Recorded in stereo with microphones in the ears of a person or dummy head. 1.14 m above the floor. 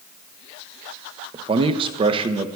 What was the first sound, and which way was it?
A man speaking, 30° right (ahead or behind).